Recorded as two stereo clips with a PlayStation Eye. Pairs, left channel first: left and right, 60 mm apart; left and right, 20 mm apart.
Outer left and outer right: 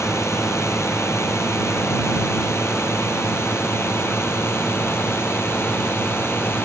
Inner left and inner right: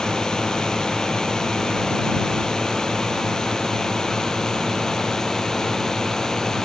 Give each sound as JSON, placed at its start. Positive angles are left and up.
{"t": 0.0, "sound": "a drone", "side_deg": 50}